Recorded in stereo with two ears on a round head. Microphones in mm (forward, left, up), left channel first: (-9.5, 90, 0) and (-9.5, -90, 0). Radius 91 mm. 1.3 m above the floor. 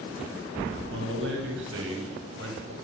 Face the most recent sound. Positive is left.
turn(degrees=-70)  # may be behind; listen again after turning